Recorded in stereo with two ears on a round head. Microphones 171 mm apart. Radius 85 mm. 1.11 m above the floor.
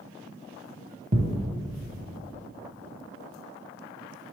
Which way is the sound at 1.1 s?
35° right (ahead or behind).